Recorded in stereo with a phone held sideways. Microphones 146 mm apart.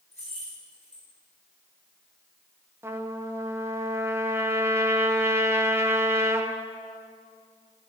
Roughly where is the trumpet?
Centre.